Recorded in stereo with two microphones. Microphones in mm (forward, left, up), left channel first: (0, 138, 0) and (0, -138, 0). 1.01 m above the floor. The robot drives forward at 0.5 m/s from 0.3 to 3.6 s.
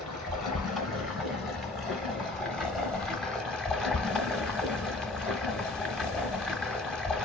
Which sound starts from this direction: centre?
Running water, at 0.0 s.